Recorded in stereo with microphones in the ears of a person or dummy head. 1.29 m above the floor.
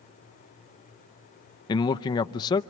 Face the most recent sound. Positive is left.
turn(degrees=20)  # may be behind; listen again after turning